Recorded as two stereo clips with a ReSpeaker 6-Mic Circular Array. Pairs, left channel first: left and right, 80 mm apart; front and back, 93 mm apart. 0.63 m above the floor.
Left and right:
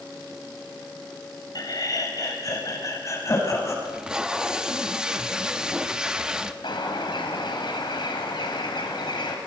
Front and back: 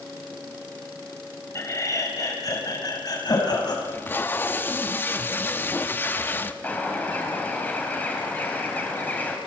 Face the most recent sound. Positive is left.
turn(degrees=70)